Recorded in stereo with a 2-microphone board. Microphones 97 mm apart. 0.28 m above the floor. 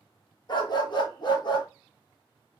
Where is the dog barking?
50° left (ahead or behind), 1.1 m.